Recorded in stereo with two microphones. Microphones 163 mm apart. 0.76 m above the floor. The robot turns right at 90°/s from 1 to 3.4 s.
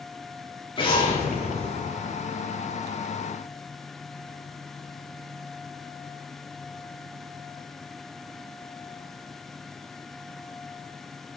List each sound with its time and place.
0.8 s an explosion: 35° left, 1.9 m; by 1.9 s 120° left, 1.9 m